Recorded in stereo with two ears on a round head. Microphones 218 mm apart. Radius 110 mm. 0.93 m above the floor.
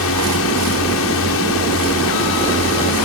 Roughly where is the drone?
Left.